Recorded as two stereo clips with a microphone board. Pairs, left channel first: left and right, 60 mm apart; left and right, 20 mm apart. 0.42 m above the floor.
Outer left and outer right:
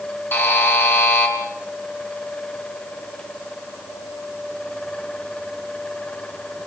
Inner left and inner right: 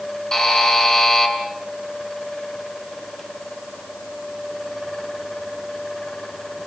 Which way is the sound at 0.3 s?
40° left (ahead or behind).